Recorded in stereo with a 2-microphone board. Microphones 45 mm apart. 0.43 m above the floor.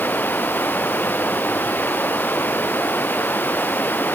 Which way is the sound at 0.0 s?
45° left (ahead or behind).